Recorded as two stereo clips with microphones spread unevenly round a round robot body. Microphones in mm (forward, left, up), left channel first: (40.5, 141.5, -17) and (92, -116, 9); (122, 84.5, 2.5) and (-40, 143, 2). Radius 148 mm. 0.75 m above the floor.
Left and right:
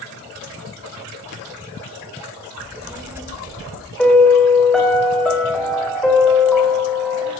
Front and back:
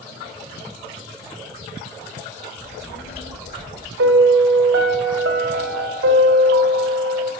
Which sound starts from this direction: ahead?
A child speaking, at 2.6 s.